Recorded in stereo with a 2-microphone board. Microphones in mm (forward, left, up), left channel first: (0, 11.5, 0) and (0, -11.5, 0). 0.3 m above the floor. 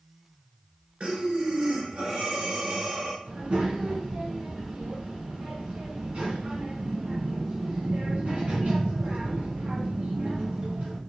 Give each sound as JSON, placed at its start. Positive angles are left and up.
{"t": 1.0, "sound": "breathing", "side_deg": -60, "distance_m": 2.0}
{"t": 3.2, "sound": "a child speaking", "side_deg": -70, "distance_m": 2.0}